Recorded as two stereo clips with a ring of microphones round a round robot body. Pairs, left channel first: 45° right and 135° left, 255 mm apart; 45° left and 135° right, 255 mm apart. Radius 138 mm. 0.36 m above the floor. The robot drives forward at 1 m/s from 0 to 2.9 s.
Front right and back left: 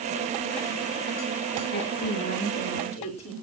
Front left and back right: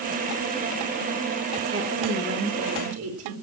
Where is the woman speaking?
95° right, 4 m; by 3.3 s 110° right, 4.5 m.